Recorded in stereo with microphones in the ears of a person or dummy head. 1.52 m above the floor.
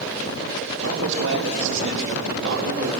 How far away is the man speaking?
About 4 m.